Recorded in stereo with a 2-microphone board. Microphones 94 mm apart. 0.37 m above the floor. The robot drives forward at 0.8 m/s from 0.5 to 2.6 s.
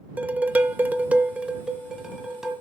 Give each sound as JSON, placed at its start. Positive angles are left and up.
{"t": 0.2, "sound": "dishes clattering", "side_deg": -15, "distance_m": 0.5}